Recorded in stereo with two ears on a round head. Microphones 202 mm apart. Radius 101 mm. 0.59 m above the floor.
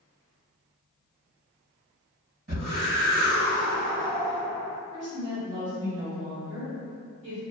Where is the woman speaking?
30° right (ahead or behind), 1.4 m.